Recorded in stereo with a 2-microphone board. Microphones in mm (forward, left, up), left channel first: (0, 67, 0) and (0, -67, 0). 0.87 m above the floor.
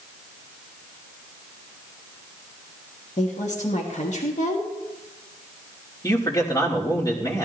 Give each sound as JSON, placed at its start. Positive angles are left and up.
{"t": 3.2, "sound": "a woman speaking", "side_deg": 60, "distance_m": 1.5}
{"t": 6.0, "sound": "a man speaking", "side_deg": 25, "distance_m": 2.5}